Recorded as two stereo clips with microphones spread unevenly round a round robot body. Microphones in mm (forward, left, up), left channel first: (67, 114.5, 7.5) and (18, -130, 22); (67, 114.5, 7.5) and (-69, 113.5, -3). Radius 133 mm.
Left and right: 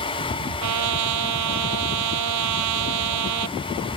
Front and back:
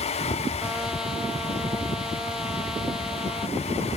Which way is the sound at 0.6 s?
90° right.